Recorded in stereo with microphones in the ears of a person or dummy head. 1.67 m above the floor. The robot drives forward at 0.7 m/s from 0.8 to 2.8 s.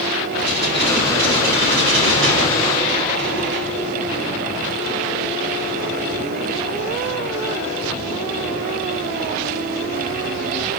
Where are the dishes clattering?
65° right (ahead or behind), 9.5 m; by 3.8 s 75° right (ahead or behind), 9 m.